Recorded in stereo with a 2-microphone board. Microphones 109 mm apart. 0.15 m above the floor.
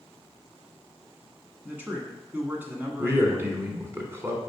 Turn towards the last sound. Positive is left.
turn(degrees=-20)  # may be behind; listen again after turning